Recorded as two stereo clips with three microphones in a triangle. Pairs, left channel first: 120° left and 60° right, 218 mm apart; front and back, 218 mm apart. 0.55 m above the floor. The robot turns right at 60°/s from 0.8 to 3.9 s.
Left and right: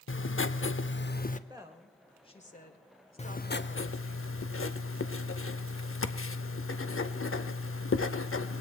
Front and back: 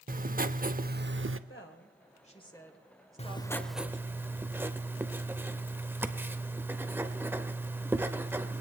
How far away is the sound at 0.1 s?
About 0.6 m.